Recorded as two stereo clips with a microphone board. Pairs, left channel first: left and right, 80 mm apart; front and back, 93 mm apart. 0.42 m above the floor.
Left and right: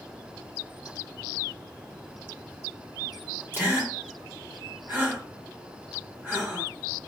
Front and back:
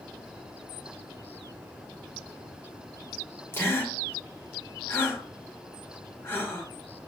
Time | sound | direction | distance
3.5 | a gasp | 50° right | 1.1 m